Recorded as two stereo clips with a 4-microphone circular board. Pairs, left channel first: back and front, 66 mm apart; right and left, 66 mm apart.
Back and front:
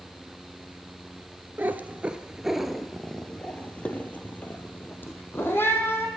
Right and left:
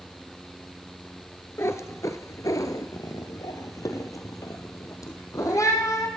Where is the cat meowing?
55° right, 1.0 m; by 6.1 s 125° right, 2.5 m.